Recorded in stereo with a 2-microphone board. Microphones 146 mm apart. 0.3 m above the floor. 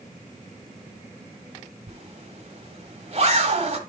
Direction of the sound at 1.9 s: 45° right (ahead or behind).